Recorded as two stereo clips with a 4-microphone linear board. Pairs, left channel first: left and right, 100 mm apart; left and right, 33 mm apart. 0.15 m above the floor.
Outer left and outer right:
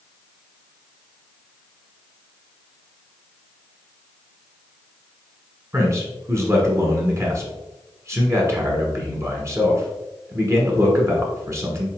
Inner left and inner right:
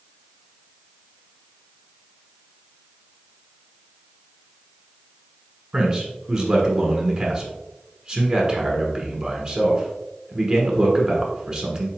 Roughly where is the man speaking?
Right.